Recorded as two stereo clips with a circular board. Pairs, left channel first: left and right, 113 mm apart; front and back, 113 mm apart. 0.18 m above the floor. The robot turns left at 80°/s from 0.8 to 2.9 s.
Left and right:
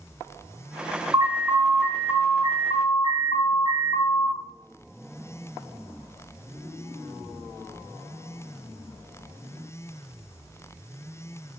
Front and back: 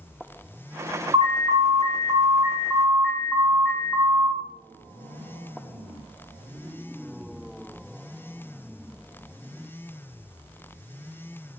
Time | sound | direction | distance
1.1 | an alarm | 145° right | 4.5 m